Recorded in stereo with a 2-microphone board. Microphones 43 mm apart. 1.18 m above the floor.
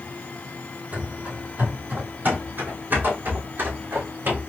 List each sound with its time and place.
0.9 s running footsteps: 40° right (ahead or behind), 1.6 m; by 4.4 s 55° right (ahead or behind), 3 m